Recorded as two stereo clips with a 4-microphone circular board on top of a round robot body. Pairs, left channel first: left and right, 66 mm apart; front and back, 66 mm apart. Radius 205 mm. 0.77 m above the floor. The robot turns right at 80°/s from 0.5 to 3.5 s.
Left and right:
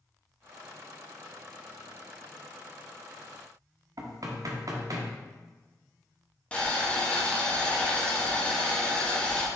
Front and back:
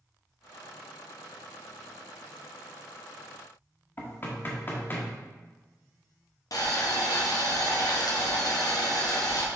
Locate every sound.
4.0 s knocking: 60° right, 1.2 m
6.5 s boiling: 20° left, 1.6 m